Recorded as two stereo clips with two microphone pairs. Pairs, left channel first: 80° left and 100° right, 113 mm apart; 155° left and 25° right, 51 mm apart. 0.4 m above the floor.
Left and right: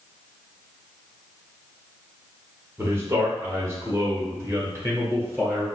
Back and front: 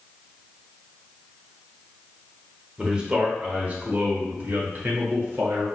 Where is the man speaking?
80° right, 1.3 m; by 5.7 s 40° right, 2 m.